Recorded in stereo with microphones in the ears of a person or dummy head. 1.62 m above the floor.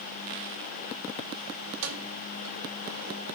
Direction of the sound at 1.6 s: 80° right.